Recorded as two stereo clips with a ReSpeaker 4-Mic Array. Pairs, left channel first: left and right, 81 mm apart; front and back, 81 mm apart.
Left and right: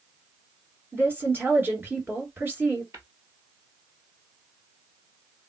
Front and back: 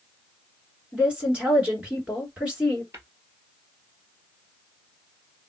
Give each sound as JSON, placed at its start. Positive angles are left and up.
{"t": 0.9, "sound": "a woman speaking", "azimuth_deg": -120, "distance_m": 1.9}
{"t": 2.9, "sound": "tapping", "azimuth_deg": -135, "distance_m": 1.5}